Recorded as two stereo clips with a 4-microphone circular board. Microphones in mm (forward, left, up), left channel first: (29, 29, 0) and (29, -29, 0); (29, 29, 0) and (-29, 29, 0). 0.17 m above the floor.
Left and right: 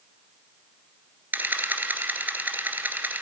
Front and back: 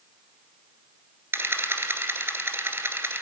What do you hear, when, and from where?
1.3 s a camera shutter: 140° right, 1.9 m